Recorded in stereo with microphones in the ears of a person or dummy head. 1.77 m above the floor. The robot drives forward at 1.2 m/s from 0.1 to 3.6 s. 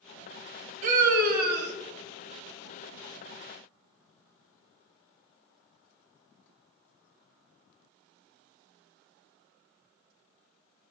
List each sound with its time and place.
0.8 s a scream: 45° right (ahead or behind), 3 m; by 1.7 s 65° right (ahead or behind), 2.5 m